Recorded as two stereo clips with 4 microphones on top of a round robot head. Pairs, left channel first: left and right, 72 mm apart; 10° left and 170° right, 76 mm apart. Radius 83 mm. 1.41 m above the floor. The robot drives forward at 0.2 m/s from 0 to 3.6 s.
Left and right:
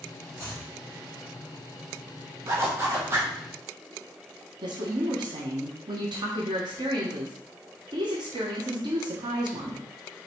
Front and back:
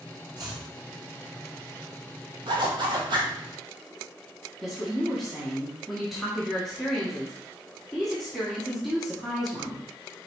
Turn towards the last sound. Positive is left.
turn(degrees=-80)